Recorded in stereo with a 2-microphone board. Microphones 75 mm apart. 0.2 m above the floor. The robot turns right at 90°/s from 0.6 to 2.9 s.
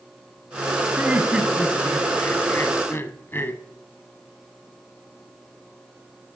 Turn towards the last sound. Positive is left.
turn(degrees=115)